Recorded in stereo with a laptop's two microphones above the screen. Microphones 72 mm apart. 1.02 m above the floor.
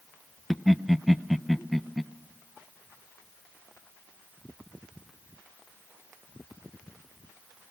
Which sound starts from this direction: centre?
Laughter, at 0.5 s.